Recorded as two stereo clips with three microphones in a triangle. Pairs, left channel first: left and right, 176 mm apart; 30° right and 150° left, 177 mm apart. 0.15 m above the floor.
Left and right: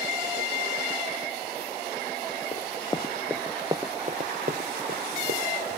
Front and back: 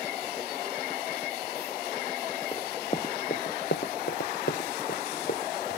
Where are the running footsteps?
40° left, 0.9 m; by 5.8 s 70° right, 1.8 m.